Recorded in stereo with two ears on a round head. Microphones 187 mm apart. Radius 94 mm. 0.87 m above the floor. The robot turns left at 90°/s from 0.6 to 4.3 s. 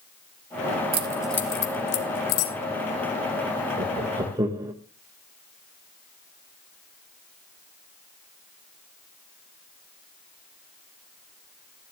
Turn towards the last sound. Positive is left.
turn(degrees=-15)  # may be behind; listen again after turning